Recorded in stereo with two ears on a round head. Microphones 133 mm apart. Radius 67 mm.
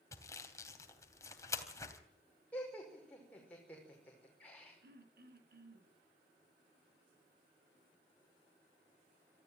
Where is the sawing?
20° left (ahead or behind), 3 m.